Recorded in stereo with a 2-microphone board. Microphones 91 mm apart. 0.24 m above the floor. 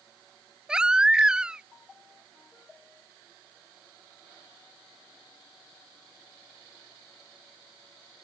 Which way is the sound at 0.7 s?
10° right (ahead or behind).